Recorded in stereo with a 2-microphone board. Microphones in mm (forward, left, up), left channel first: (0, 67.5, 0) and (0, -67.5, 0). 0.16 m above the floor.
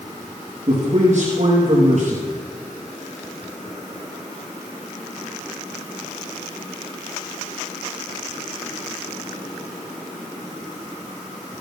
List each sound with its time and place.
0.7 s a man speaking: 60° right (ahead or behind), 3.5 m